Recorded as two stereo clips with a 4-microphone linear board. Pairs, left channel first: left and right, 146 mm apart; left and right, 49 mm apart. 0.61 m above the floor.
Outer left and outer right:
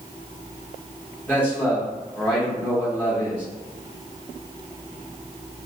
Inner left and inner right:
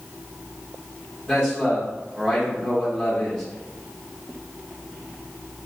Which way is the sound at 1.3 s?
10° left (ahead or behind).